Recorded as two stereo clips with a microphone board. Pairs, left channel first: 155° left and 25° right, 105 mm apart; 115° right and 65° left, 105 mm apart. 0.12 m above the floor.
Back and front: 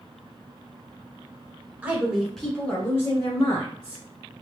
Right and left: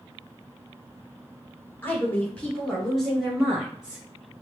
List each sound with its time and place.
1.8 s a woman speaking: 70° right, 1.1 m; by 4.0 s 150° left, 1.6 m